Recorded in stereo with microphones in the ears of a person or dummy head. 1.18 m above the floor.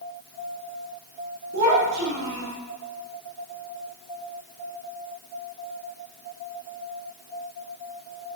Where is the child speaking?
65° right (ahead or behind), 1.7 m.